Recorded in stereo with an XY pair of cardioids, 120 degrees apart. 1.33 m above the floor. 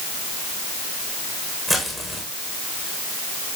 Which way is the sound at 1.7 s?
15° right.